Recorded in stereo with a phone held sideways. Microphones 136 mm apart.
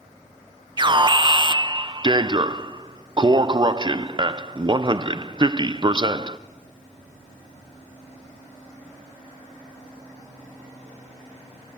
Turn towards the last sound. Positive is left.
turn(degrees=-35)  # may be behind; listen again after turning